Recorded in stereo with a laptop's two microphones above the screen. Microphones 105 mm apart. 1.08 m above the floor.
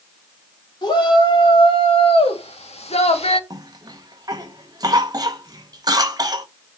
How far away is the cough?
About 1.1 m.